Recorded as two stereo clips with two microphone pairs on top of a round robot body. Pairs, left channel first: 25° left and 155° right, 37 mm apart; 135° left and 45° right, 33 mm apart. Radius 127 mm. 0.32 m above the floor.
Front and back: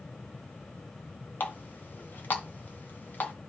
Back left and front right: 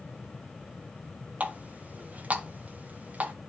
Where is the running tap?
5° right, 2.5 m.